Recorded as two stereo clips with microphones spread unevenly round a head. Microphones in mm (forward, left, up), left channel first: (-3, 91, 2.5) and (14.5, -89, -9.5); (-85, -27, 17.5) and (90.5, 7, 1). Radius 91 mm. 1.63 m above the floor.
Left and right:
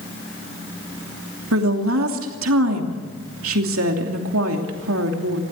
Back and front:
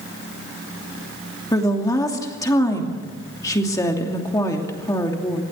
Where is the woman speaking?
100° right, 2.5 m.